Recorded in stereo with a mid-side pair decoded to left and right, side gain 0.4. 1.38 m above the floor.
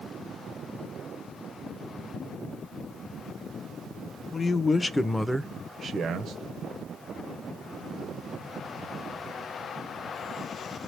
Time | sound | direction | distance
4.3 | a man speaking | 40° left | 1.1 m